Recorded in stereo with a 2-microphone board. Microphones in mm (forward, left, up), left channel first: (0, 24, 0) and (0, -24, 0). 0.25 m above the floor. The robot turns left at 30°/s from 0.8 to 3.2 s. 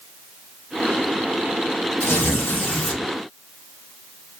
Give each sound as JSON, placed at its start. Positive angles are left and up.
{"t": 2.0, "sound": "tearing paper", "azimuth_deg": 60, "distance_m": 3.0}